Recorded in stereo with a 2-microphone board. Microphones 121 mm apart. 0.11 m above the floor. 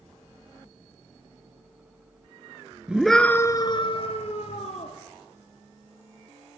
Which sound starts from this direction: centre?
A scream, at 2.9 s.